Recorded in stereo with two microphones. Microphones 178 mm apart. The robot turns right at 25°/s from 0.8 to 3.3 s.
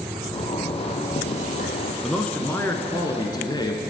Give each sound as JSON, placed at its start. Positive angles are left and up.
{"t": 0.3, "sound": "a zipper", "side_deg": 35, "distance_m": 1.3}
{"t": 2.0, "sound": "a man speaking", "azimuth_deg": 5, "distance_m": 1.4}